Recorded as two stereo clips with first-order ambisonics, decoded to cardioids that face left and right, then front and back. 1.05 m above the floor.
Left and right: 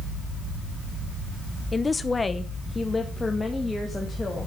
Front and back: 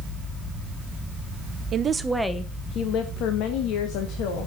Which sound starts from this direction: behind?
A woman speaking, at 1.7 s.